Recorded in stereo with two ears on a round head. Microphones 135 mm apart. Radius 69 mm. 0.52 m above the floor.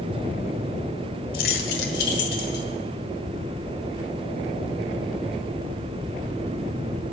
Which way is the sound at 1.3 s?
60° left (ahead or behind).